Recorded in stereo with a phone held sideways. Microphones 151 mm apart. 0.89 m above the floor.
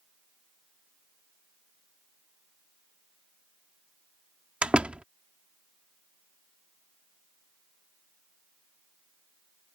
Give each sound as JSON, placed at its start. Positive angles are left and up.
{"t": 4.6, "sound": "a door slam", "side_deg": -5}